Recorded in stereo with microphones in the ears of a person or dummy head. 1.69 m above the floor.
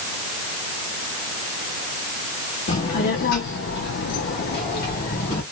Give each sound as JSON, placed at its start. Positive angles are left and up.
{"t": 2.7, "sound": "a child speaking", "side_deg": 30, "distance_m": 1.2}